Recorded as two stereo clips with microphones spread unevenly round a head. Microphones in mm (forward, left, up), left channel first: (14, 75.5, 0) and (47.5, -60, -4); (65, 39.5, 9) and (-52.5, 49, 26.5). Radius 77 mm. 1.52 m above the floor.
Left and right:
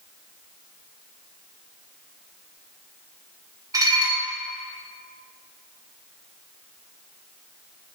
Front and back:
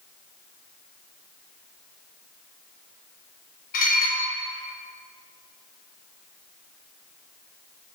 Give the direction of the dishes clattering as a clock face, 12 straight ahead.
12 o'clock.